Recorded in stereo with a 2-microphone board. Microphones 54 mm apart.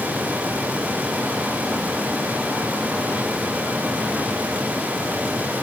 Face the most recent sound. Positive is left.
No sound to turn to.